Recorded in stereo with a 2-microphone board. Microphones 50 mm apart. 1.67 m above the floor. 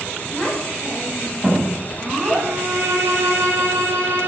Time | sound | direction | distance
0.3 | a child speaking | 10° right (ahead or behind) | 9.5 m
2.4 | a violin | 70° right (ahead or behind) | 5.5 m